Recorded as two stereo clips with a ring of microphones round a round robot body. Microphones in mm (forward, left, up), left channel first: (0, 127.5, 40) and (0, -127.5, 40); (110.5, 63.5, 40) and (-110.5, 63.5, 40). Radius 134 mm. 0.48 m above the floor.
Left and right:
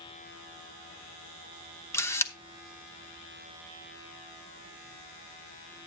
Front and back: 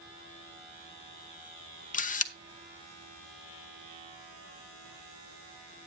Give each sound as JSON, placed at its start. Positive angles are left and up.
{"t": 1.9, "sound": "a camera shutter", "azimuth_deg": 15, "distance_m": 0.9}